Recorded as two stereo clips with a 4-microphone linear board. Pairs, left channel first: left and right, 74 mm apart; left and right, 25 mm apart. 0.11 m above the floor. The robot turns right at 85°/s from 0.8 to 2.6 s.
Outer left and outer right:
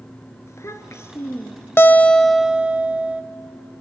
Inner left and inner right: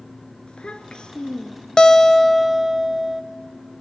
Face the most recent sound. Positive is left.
turn(degrees=-155)